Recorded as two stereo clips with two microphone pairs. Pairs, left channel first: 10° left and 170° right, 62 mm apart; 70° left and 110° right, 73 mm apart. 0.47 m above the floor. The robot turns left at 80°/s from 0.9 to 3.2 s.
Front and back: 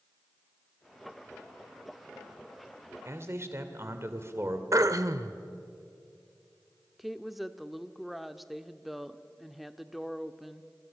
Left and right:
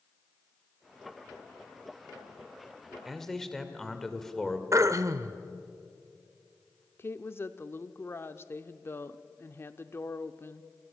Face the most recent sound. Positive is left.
turn(degrees=100)